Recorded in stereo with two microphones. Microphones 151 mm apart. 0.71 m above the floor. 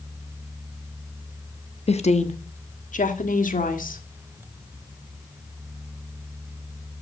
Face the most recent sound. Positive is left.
turn(degrees=65)  # may be behind; listen again after turning